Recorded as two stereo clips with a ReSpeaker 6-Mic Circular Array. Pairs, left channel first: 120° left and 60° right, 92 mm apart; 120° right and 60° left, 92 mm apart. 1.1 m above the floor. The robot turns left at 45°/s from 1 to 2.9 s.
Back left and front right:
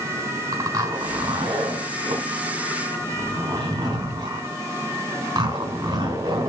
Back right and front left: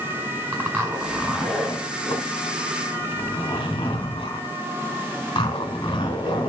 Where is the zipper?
10° right, 4 m; by 6.5 s 95° right, 4 m.